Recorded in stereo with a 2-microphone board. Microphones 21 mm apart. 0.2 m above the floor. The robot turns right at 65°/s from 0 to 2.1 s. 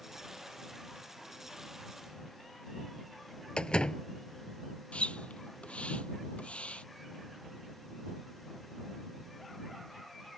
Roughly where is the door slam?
Left.